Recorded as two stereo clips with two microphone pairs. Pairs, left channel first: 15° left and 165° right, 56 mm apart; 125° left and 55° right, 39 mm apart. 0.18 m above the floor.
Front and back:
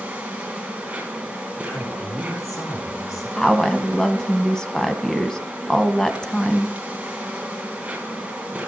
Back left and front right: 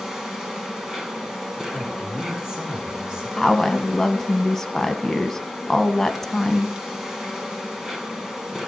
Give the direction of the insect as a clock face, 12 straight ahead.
4 o'clock.